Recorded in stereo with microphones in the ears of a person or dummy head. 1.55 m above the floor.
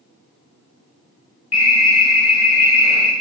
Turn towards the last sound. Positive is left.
turn(degrees=-5)  # may be behind; listen again after turning